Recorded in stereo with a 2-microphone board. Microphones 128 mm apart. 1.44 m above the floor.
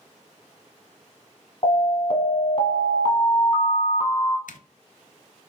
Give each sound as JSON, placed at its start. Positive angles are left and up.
{"t": 1.6, "sound": "an alarm", "side_deg": 45, "distance_m": 1.1}
{"t": 4.5, "sound": "a zipper", "side_deg": 85, "distance_m": 0.6}